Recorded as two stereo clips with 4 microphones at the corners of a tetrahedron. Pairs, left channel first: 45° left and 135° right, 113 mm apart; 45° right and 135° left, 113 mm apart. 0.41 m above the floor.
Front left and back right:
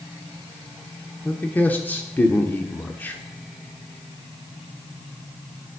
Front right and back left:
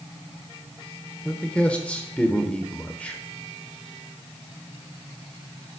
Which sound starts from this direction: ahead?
A man speaking, at 1.2 s.